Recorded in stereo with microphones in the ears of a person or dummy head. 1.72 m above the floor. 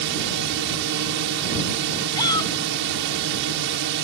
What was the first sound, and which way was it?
A drone, 70° right (ahead or behind).